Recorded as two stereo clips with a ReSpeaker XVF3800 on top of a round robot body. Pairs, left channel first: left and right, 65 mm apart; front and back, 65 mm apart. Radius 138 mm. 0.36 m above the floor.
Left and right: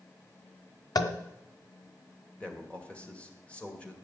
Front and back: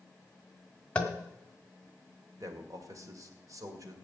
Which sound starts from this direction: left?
Tapping, at 0.9 s.